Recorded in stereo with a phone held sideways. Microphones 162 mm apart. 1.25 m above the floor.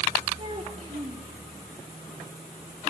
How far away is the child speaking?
About 1.4 m.